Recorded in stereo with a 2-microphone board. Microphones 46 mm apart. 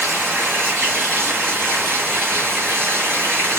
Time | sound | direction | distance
0.0 | running water | 55° right (ahead or behind) | 2.5 m